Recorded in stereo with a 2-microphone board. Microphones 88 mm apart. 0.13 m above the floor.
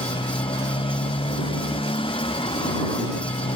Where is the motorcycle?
85° left.